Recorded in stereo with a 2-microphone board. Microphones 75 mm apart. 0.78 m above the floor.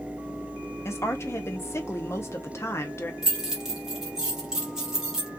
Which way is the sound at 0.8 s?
35° left (ahead or behind).